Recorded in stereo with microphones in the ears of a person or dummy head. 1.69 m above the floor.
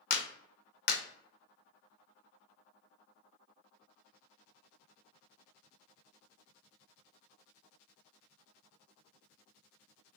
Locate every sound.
0.1 s a clap: 50° left (ahead or behind), 0.5 m